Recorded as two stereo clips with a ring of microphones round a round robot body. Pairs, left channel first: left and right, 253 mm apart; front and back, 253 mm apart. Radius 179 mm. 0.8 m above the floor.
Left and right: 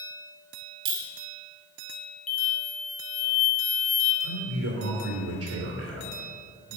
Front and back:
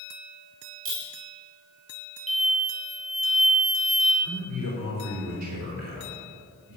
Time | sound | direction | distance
0.8 | a clink | 125° right | 2.0 m
2.3 | an explosion | 60° left | 1.6 m
4.2 | a man speaking | 145° right | 2.5 m